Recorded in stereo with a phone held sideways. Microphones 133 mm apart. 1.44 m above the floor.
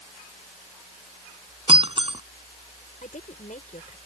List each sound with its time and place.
1.7 s breaking glass: 45° right (ahead or behind)
3.0 s a woman speaking: 80° left